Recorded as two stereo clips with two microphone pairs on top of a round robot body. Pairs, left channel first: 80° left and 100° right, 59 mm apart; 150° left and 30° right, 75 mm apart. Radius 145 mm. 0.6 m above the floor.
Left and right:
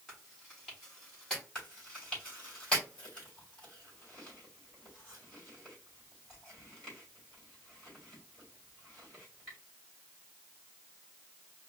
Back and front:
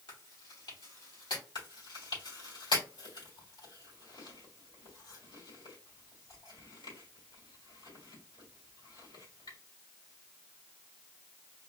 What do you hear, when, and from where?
0.1 s chewing: 160° left, 3.5 m
1.6 s chewing: 150° left, 3.5 m